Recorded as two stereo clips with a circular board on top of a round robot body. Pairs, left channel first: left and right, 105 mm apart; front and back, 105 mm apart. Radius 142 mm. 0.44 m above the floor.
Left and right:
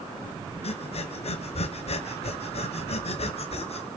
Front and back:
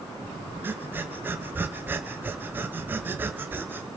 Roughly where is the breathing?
Left.